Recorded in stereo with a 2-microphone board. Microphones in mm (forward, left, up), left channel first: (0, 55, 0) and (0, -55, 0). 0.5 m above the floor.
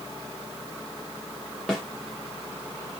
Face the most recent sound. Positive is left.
turn(degrees=5)  # may be behind; listen again after turning